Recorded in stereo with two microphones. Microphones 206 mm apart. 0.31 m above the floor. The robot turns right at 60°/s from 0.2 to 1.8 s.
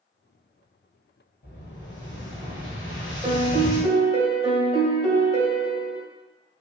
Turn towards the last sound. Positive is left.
turn(degrees=-30)  # may be behind; listen again after turning